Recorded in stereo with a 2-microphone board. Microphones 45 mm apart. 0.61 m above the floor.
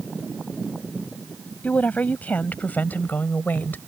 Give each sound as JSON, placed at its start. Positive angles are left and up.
{"t": 1.6, "sound": "a woman speaking", "side_deg": 35}